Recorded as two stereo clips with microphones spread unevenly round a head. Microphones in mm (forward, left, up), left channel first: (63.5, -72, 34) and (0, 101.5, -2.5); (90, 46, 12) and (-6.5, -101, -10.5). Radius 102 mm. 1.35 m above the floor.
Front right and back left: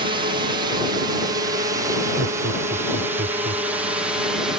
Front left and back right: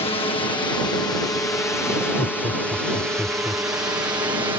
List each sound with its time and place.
0.0 s a drone: 110° left; by 4.6 s straight behind
2.2 s laughter: 140° left